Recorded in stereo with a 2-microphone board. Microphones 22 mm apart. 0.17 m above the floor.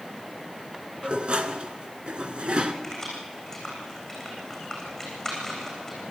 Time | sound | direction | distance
1.0 | dishes clattering | 50° right (ahead or behind) | 1.5 m
2.8 | keys jangling | 10° left (ahead or behind) | 8 m